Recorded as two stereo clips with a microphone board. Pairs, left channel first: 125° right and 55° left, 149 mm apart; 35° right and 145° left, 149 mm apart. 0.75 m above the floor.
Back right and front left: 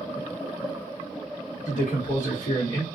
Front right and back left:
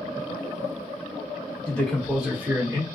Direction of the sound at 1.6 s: 100° right.